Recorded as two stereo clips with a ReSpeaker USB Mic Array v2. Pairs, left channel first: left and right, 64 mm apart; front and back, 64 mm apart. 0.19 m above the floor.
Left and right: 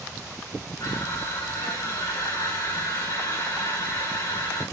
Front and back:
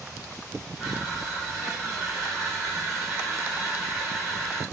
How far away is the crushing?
About 3 m.